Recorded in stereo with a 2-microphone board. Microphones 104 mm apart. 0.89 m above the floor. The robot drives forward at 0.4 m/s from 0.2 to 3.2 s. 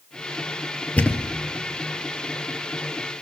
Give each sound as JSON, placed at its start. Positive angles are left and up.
{"t": 1.0, "sound": "a thud", "side_deg": 10, "distance_m": 1.0}